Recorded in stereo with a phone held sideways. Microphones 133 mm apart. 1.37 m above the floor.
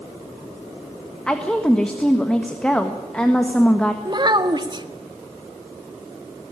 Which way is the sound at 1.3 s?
5° left (ahead or behind).